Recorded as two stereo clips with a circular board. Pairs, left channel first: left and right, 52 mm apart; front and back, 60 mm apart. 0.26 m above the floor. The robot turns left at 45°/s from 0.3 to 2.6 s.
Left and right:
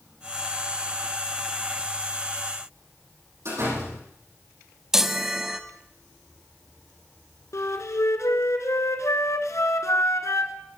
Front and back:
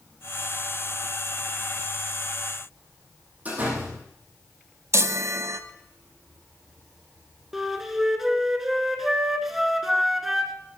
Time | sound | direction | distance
3.5 | a door slam | 115° right | 9.5 m
4.9 | a chime | 170° right | 0.8 m
7.5 | a flute | 95° left | 1.3 m